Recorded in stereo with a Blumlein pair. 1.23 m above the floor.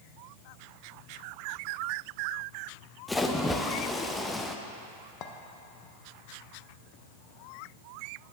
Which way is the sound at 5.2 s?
35° left.